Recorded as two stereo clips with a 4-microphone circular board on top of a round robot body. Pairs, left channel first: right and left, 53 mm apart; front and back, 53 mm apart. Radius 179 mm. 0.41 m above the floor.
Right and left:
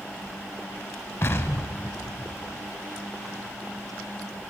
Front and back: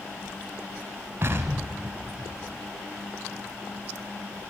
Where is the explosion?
130° right, 0.9 m.